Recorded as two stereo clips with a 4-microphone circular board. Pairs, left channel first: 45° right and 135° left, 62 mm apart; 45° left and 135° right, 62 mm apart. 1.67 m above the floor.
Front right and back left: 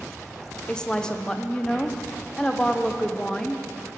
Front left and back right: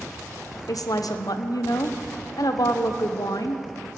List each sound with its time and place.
0.7 s a woman speaking: 30° left, 0.9 m